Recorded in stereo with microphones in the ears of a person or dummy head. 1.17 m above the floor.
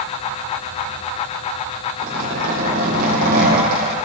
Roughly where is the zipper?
Right.